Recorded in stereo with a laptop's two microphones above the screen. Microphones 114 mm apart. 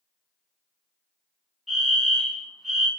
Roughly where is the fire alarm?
Centre.